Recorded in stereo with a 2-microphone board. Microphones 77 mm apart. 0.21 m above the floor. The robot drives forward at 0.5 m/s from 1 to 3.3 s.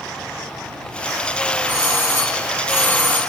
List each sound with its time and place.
1.7 s a doorbell: 25° left (ahead or behind), 1.5 m